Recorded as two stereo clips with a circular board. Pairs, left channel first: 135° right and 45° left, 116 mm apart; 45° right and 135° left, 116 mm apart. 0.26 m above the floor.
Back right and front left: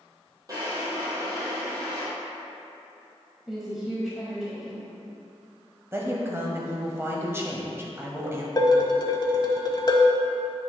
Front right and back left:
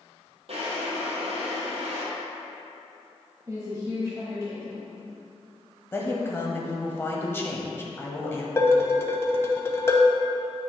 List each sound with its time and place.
0.5 s a drawer: 105° left, 2.5 m
3.5 s a woman speaking: 130° left, 1.4 m
5.9 s a woman speaking: straight ahead, 1.2 m
8.6 s dishes clattering: 100° right, 1.0 m